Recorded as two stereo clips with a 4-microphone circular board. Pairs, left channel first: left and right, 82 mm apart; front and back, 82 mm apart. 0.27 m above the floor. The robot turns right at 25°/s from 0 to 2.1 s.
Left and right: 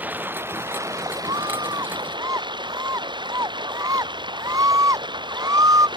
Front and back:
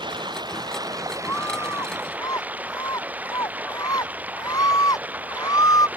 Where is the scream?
65° right; by 5.9 s 45° right.